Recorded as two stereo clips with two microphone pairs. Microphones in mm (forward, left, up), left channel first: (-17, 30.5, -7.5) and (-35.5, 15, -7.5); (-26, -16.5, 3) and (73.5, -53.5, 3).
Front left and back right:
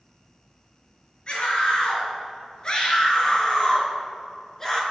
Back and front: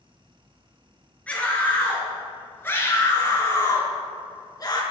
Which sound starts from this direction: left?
A scream, at 1.3 s.